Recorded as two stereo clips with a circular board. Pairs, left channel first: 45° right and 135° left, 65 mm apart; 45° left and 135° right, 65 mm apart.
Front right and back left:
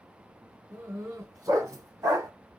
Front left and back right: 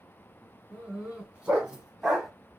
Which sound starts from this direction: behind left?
A dog barking, at 0.7 s.